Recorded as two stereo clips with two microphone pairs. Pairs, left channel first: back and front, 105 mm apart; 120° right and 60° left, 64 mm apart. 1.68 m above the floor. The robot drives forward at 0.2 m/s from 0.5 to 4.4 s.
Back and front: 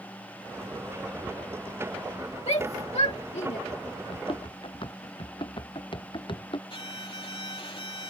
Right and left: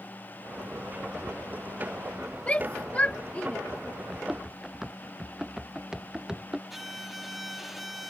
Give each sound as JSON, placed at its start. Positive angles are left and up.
{"t": 2.5, "sound": "a shout", "azimuth_deg": 175}
{"t": 4.1, "sound": "running footsteps", "azimuth_deg": 150}
{"t": 6.7, "sound": "a violin", "azimuth_deg": 150}